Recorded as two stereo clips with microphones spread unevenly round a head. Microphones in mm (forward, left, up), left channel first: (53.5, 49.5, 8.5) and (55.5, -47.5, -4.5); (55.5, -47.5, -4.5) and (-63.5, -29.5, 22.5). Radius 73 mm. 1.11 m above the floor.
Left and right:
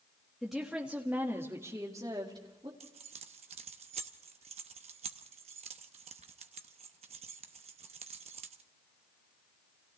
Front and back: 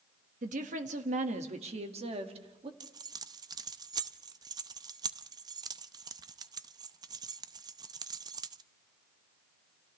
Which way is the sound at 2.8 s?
140° right.